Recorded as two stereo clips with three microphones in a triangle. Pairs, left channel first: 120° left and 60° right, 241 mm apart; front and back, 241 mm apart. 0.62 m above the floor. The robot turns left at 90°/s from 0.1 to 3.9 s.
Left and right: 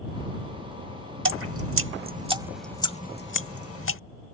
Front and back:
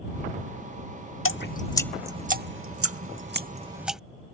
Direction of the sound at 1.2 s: 30° right.